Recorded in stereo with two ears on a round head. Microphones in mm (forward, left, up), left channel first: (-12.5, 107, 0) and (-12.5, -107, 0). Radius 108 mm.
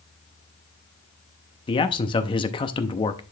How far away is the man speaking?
About 0.6 m.